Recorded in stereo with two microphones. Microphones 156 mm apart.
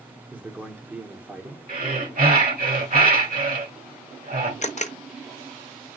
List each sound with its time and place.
0.3 s a man speaking: 10° right (ahead or behind), 1.0 m
1.7 s breathing: 65° right (ahead or behind), 1.6 m
4.6 s a camera shutter: 50° left (ahead or behind), 0.5 m